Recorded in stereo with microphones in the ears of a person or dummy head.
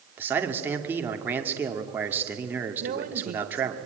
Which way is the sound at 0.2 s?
5° right (ahead or behind).